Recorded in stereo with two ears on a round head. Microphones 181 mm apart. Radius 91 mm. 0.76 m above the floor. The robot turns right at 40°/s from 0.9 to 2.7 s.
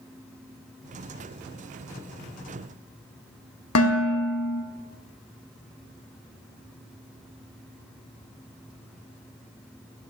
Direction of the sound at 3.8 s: 80° left.